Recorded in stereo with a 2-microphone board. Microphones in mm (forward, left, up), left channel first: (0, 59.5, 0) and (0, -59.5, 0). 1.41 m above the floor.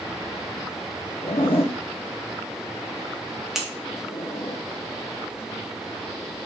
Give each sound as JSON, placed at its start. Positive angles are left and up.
{"t": 1.2, "sound": "a zipper", "side_deg": 55, "distance_m": 1.1}
{"t": 3.5, "sound": "scissors", "side_deg": -5, "distance_m": 1.7}